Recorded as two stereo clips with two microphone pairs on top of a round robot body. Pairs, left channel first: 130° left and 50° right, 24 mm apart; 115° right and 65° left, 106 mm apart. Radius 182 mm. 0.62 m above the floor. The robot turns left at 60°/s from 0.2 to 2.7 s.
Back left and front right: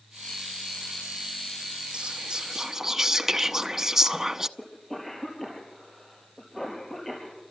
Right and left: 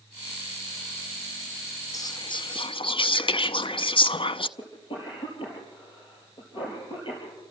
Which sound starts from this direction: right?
Whispering, at 1.9 s.